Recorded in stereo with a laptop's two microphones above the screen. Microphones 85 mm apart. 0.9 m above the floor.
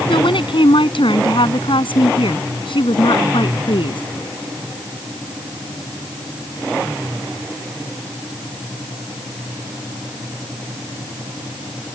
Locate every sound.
0.1 s a woman speaking: 80° left